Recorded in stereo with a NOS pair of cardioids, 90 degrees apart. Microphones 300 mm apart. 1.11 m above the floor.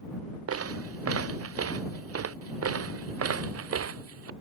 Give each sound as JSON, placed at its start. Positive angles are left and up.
{"t": 0.5, "sound": "footsteps", "azimuth_deg": -50}